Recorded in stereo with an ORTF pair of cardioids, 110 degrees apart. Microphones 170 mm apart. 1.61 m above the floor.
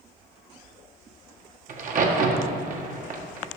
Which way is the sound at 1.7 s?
50° right.